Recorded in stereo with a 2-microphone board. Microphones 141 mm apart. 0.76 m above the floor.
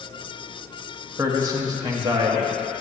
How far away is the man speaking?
About 0.9 m.